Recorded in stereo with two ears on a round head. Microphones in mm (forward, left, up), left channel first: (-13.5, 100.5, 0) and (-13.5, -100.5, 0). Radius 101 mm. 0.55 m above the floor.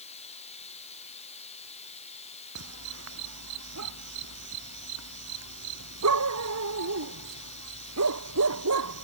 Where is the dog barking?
80° right.